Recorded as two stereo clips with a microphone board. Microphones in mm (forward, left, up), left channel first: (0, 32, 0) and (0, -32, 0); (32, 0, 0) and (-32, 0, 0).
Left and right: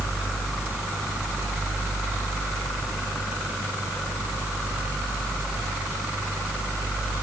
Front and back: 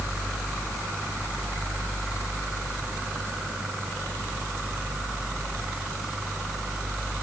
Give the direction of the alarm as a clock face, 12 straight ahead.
No alarm in this recording.